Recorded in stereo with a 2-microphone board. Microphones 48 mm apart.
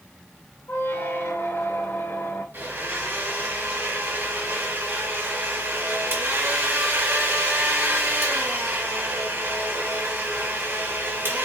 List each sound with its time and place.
0.7 s a squeak: 55° left (ahead or behind), 1.3 m
2.5 s a blender: 50° right (ahead or behind), 1.9 m